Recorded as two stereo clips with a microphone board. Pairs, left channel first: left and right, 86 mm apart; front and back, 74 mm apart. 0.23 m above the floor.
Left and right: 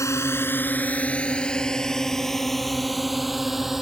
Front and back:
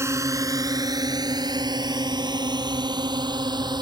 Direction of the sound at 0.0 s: 140° left.